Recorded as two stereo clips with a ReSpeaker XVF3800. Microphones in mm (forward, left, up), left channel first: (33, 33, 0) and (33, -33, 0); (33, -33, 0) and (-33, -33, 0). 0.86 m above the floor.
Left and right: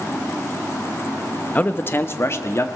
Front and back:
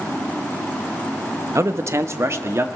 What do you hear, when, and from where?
1.6 s a man speaking: 150° left, 0.8 m; by 2.6 s 135° left, 1.6 m